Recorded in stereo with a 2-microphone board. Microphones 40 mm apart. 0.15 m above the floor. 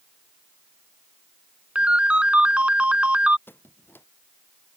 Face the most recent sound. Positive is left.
turn(degrees=65)  # may be behind; listen again after turning